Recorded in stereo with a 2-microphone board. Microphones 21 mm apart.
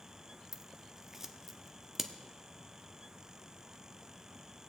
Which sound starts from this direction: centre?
Scissors, at 0.5 s.